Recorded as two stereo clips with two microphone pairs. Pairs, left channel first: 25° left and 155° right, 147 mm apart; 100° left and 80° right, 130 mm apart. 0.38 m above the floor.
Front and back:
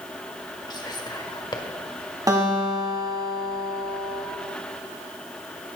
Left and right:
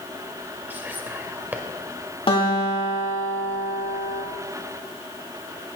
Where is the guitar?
140° left, 2.5 m.